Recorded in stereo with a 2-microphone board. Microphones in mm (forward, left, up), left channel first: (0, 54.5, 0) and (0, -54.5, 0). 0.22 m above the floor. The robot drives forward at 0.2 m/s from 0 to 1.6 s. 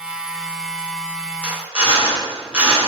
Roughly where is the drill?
Centre.